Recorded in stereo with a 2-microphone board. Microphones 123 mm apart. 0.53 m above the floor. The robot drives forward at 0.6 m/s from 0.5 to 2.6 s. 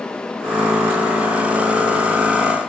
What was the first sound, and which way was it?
Only background noise.